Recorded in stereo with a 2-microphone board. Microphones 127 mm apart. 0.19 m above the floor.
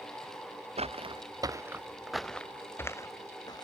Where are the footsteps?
55° right (ahead or behind); by 3.6 s 30° left (ahead or behind).